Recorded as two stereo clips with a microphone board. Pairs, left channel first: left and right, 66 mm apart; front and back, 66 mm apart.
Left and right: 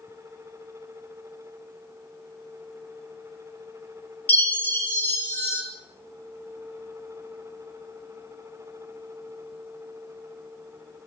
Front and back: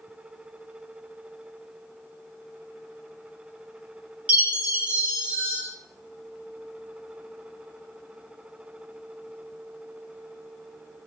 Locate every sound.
4.3 s a chime: 125° left, 0.5 m